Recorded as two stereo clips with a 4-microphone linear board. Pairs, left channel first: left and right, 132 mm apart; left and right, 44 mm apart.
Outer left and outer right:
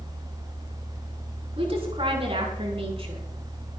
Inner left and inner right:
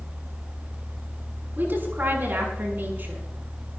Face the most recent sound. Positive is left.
turn(degrees=-45)  # may be behind; listen again after turning